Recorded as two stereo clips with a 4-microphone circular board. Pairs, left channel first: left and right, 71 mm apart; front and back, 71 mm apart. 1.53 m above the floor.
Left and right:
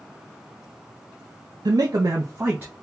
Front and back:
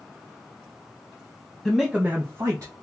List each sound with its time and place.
1.6 s a man speaking: 80° right, 0.5 m; by 2.8 s 155° right, 0.8 m